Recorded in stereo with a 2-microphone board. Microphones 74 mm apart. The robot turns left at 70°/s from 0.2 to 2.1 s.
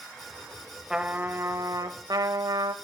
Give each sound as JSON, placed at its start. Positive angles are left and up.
{"t": 0.9, "sound": "a trumpet", "azimuth_deg": -10, "distance_m": 0.7}